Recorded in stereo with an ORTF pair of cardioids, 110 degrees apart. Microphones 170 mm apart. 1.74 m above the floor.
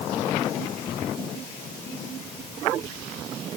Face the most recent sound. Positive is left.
No sound to turn to.